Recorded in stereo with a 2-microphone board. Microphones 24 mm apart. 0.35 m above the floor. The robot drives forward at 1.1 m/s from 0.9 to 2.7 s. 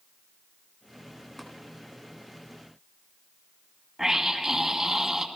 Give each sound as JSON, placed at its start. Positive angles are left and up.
{"t": 1.4, "sound": "tapping", "side_deg": 10, "distance_m": 3.5}
{"t": 4.0, "sound": "a scream", "side_deg": -15, "distance_m": 2.5}